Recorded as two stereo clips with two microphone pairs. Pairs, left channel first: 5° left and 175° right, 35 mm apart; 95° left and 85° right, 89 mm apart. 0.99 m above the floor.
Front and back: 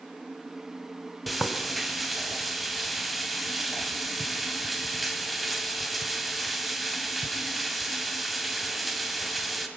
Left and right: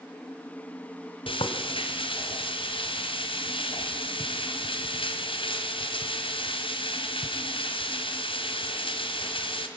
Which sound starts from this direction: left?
Frying, at 1.3 s.